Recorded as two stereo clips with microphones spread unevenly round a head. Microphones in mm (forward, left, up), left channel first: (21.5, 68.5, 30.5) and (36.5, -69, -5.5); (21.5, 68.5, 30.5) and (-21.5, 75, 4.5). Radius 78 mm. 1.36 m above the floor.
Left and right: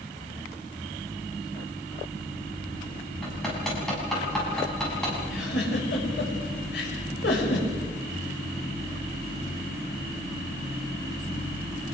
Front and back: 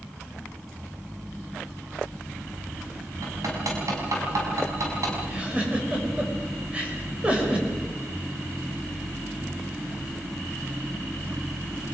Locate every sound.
3.2 s hammering: straight behind, 6 m
5.3 s a giggle: 105° left, 5.5 m